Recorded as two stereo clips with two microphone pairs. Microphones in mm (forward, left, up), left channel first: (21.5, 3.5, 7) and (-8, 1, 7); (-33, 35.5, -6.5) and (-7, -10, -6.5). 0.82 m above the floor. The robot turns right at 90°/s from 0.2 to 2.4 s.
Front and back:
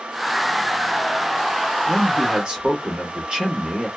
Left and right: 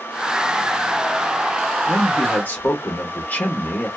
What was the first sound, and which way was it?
A man speaking, 105° left.